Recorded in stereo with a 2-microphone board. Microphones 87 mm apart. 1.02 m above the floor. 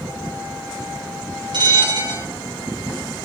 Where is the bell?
60° right (ahead or behind), 2 m.